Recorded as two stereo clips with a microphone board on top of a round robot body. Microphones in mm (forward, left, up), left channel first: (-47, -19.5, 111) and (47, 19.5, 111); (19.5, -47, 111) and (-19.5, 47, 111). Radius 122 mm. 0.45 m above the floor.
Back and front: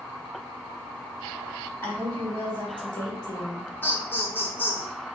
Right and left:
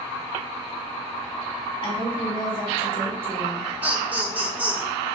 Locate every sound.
1.8 s a woman speaking: 85° right, 2.5 m; by 3.6 s 75° right, 3 m
3.8 s laughter: 165° left, 1.3 m